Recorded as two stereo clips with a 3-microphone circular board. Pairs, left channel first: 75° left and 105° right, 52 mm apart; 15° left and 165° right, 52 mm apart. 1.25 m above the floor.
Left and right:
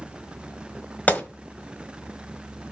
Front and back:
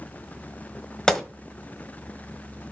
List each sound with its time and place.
1.1 s a gunshot: 85° left, 1.2 m